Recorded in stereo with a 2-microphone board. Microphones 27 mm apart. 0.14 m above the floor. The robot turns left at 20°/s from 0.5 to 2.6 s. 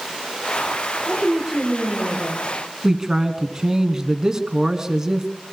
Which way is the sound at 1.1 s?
10° right (ahead or behind).